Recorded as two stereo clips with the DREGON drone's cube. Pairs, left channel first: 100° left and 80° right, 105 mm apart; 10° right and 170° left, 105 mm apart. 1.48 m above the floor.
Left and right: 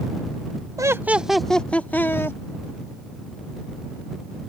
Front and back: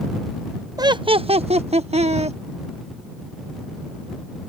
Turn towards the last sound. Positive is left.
turn(degrees=165)